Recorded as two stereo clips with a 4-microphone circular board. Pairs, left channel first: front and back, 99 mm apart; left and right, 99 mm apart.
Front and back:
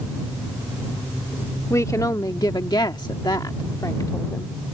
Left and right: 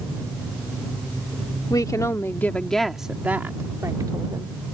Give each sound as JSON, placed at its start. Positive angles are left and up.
{"t": 1.7, "sound": "a woman speaking", "azimuth_deg": 50}